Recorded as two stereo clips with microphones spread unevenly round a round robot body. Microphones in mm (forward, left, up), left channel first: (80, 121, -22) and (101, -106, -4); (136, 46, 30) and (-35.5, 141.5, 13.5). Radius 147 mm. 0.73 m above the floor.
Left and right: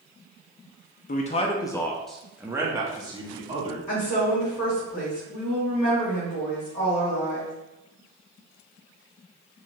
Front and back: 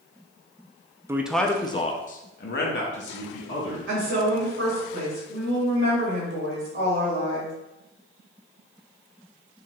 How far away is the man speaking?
About 0.6 m.